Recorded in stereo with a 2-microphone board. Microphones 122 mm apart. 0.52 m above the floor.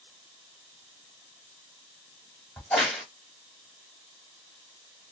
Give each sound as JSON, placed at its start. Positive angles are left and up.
{"t": 2.6, "sound": "a crack", "side_deg": 10, "distance_m": 1.1}